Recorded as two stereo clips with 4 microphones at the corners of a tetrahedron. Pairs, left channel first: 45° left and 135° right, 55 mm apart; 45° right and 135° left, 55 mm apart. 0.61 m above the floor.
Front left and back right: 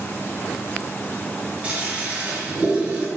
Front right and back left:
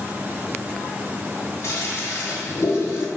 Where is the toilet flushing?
70° right, 0.9 m.